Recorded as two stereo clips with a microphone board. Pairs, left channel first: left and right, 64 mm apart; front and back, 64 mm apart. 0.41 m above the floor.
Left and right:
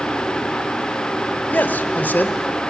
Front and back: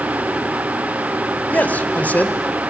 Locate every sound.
1.5 s a man speaking: 50° left, 1.2 m